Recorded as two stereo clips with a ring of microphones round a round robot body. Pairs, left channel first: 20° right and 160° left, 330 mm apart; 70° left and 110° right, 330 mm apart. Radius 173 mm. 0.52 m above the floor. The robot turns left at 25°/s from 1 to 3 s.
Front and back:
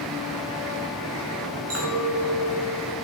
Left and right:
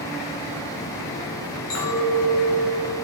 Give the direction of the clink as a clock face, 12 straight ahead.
8 o'clock.